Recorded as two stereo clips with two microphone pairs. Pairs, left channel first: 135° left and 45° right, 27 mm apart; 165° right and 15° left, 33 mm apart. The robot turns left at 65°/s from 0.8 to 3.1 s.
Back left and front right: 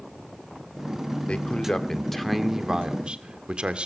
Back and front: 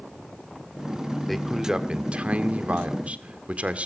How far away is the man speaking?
About 1.8 m.